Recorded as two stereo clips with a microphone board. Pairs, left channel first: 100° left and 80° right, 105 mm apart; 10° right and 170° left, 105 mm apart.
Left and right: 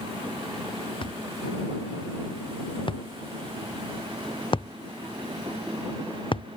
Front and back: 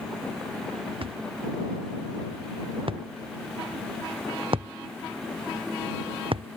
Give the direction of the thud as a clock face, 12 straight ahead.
7 o'clock.